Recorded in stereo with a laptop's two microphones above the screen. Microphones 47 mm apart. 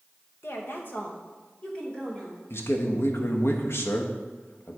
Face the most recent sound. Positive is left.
turn(degrees=60)  # may be behind; listen again after turning